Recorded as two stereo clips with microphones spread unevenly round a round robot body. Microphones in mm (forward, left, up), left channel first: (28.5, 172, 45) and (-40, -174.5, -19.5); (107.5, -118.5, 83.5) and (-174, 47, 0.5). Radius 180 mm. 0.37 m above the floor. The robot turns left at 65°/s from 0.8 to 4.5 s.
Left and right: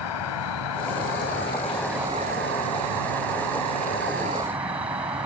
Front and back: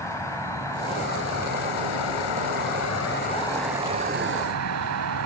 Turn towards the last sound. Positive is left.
turn(degrees=180)